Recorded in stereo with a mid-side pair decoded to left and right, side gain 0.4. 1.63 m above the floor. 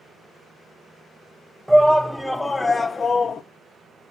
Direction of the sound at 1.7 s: Straight ahead.